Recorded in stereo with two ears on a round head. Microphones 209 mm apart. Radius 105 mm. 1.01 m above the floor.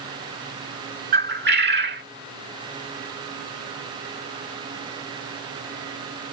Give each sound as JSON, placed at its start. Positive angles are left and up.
{"t": 1.1, "sound": "a bird", "side_deg": -45}